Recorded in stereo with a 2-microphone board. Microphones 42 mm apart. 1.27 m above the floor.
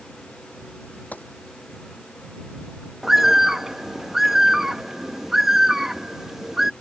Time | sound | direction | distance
1.1 | a gunshot | 45° left (ahead or behind) | ?
3.0 | a bird | 10° right (ahead or behind) | ?